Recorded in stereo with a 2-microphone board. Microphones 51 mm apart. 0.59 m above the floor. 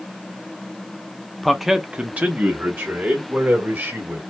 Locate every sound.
1.4 s a man speaking: 5° left (ahead or behind), 0.7 m; by 4.2 s 50° right (ahead or behind), 2 m